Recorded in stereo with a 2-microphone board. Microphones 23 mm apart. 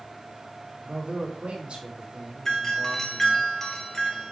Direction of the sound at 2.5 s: 20° left (ahead or behind).